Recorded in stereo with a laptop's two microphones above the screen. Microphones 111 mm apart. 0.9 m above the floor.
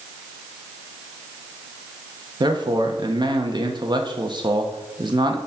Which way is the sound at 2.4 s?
45° right (ahead or behind).